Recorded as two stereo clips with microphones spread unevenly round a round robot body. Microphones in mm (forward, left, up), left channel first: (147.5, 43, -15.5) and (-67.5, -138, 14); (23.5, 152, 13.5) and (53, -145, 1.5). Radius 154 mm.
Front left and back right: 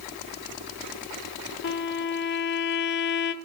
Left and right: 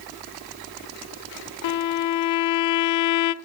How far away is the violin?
About 0.6 m.